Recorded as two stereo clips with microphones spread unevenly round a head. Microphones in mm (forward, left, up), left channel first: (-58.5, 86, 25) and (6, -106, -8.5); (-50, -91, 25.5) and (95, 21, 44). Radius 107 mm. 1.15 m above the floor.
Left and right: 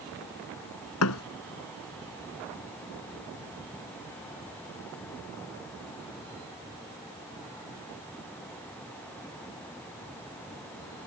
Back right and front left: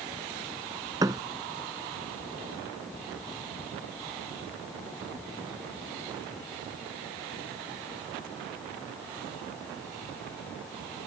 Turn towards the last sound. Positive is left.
turn(degrees=110)